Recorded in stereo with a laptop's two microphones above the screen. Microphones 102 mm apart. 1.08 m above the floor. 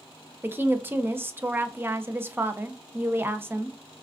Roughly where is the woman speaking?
Right.